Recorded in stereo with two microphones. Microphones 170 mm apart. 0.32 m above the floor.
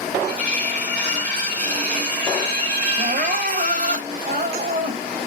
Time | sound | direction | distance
0.3 | cutlery clinking | 45° right (ahead or behind) | 1.8 m
3.0 | crying | 55° right (ahead or behind) | 0.8 m